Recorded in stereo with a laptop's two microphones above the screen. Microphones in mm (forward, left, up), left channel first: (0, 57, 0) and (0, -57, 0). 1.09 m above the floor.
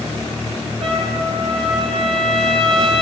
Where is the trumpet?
60° right (ahead or behind), 9 m.